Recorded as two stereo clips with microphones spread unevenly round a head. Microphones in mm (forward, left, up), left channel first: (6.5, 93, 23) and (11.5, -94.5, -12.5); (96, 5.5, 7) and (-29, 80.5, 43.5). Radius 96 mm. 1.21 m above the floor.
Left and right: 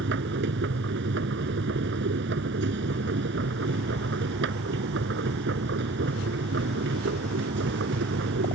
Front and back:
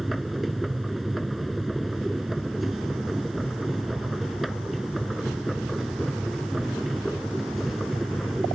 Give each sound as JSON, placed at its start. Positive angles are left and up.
{"t": 0.0, "sound": "a machine running", "azimuth_deg": -125}